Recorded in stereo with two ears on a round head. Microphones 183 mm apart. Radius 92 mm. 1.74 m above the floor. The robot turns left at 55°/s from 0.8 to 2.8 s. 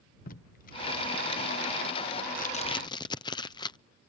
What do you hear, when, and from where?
0.3 s tape being pulled: 45° left (ahead or behind); by 3.8 s 20° left (ahead or behind)